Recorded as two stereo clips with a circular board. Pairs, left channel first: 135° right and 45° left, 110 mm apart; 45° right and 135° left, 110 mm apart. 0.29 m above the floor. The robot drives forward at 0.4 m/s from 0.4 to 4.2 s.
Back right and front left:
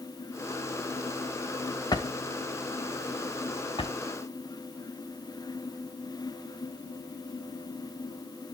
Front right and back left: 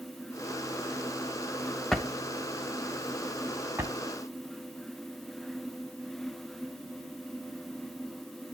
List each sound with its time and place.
1.9 s a drawer: 130° right, 0.9 m; by 4.0 s 160° right, 1.4 m